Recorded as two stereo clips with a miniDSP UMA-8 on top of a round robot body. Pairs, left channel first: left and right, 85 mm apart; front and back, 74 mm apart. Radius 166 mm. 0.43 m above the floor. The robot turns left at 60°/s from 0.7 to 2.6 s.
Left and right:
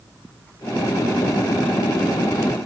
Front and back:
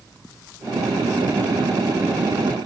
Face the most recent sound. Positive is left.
No sound to turn to.